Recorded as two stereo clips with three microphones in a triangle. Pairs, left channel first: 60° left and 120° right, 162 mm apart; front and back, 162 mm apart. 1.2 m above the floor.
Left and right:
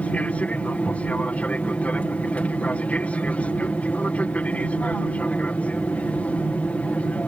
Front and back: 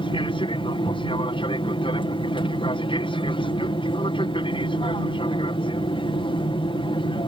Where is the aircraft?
15° right.